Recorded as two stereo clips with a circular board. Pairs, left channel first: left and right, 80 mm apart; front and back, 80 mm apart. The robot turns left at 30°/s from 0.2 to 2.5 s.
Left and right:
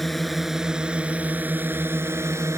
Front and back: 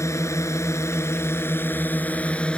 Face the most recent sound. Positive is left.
turn(degrees=-65)